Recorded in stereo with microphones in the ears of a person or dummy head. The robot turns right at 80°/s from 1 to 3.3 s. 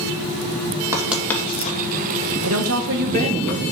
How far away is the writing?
About 2 m.